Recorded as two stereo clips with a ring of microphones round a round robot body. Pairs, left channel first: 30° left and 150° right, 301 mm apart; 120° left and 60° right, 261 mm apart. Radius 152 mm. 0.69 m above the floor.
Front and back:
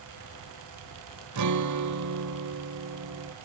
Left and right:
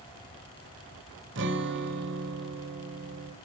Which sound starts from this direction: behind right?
A guitar, at 1.4 s.